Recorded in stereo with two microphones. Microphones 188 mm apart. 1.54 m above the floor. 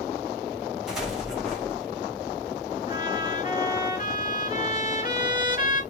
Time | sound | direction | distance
0.9 | an explosion | centre (ahead or behind) | 3 m
2.9 | a trumpet | 45° left (ahead or behind) | 2.5 m